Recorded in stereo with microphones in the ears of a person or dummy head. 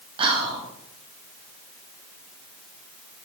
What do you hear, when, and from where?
0.2 s whispering: 35° right (ahead or behind), 1.0 m